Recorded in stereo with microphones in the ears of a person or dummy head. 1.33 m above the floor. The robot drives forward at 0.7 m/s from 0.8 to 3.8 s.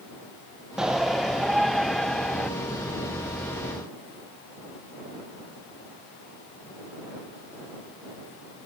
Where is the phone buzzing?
I don't hear a phone buzzing.